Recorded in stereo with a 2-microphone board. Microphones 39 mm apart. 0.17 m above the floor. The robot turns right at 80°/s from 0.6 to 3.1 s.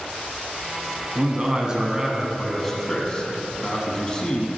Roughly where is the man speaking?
Right.